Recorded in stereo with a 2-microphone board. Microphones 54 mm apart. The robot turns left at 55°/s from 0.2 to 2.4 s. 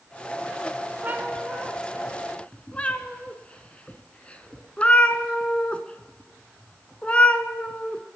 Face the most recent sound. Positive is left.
turn(degrees=20)  # may be behind; listen again after turning